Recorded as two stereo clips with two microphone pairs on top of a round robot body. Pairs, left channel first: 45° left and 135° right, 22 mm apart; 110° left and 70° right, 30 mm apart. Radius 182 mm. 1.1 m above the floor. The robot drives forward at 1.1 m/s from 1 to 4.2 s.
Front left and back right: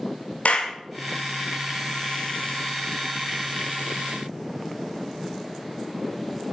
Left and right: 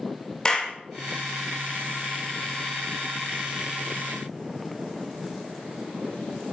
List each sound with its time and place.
0.5 s a clap: 40° left, 2 m